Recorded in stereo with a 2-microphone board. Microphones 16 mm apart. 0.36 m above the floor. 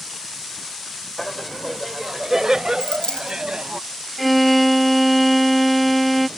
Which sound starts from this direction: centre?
A violin, at 4.2 s.